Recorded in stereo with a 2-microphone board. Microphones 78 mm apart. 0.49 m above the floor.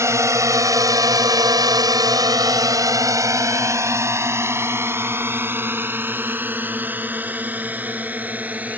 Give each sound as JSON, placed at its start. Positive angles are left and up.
{"t": 0.0, "sound": "a drone", "side_deg": -40}